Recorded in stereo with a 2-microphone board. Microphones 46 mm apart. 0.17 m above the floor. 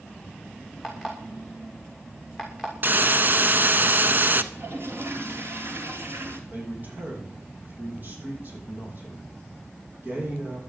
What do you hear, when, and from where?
0.8 s an alarm clock: 5° right (ahead or behind), 6 m
2.8 s a hiss: 45° right (ahead or behind), 1.0 m
4.5 s a toilet flushing: 60° right (ahead or behind), 3 m
6.5 s a man speaking: 45° right (ahead or behind), 8 m